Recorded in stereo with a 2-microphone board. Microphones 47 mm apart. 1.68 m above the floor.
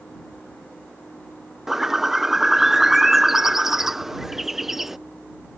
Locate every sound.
1.7 s a bird: 5° right (ahead or behind)